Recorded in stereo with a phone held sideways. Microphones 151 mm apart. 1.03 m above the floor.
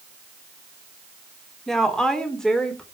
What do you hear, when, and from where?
1.7 s a woman speaking: 5° left (ahead or behind), 3 m